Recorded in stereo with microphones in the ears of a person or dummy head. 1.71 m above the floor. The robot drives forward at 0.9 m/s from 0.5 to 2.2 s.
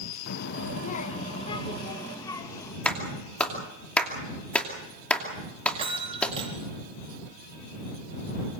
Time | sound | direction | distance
0.3 | a child speaking | 55° left (ahead or behind) | 0.9 m
2.9 | a clap | 5° left (ahead or behind) | 2.5 m
5.7 | a bell | 30° right (ahead or behind) | 4 m